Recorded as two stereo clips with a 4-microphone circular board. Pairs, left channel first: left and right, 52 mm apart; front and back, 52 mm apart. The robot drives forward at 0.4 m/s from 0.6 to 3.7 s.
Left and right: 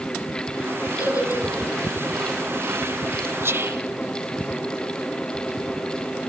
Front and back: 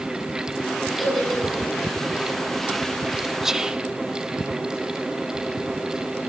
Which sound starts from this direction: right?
Whispering, at 3.4 s.